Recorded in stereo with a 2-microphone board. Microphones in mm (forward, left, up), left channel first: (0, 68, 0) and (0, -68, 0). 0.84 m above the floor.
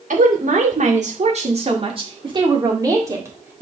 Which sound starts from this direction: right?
A woman speaking, at 0.1 s.